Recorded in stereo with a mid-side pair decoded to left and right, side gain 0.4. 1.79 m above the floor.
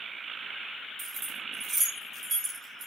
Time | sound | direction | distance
1.0 | keys jangling | 60° right | 2.5 m